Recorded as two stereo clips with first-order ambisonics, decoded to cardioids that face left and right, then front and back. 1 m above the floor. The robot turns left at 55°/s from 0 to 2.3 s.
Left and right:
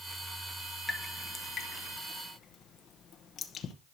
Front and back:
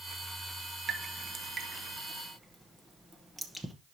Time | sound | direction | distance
0.9 | dripping | 175° left | 0.8 m